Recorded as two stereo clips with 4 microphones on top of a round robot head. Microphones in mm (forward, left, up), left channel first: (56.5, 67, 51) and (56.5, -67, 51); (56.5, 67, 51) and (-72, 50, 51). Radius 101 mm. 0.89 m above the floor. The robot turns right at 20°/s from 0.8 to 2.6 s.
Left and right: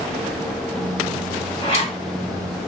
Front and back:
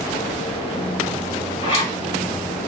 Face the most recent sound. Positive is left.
turn(degrees=65)